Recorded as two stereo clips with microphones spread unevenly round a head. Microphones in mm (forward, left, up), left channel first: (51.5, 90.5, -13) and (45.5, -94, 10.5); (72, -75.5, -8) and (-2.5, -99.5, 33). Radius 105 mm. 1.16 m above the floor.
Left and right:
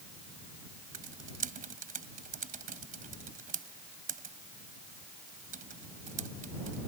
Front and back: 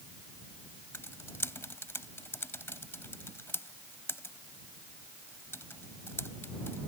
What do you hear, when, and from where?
0.9 s typing on a keyboard: 50° right